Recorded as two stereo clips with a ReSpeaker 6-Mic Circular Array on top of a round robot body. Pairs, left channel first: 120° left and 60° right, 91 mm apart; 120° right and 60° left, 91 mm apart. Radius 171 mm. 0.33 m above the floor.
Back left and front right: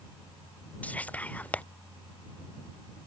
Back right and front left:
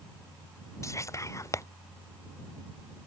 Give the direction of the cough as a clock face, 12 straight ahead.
No cough in this recording.